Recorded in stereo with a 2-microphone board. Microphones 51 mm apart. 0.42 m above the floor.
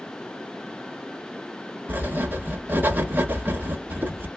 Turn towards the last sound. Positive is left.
turn(degrees=-35)  # may be behind; listen again after turning